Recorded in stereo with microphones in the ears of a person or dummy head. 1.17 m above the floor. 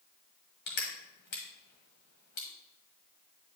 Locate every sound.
0.7 s crushing: 45° left (ahead or behind), 1.3 m